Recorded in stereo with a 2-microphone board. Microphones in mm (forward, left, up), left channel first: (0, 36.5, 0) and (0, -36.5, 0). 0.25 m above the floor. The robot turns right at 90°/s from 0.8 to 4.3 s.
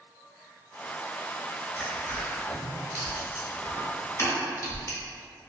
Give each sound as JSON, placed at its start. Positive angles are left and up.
{"t": 1.8, "sound": "crushing", "side_deg": -5, "distance_m": 1.0}